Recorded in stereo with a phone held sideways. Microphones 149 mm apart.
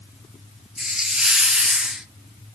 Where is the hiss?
5° right (ahead or behind), 0.6 m.